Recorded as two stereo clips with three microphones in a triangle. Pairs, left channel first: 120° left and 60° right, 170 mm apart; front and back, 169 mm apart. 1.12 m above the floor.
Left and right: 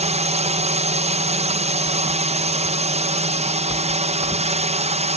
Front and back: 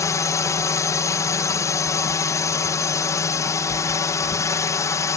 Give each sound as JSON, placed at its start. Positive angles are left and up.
{"t": 0.0, "sound": "a drone", "azimuth_deg": -60}